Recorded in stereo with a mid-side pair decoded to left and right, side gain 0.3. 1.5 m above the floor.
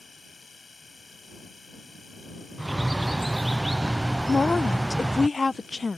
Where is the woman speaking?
35° left.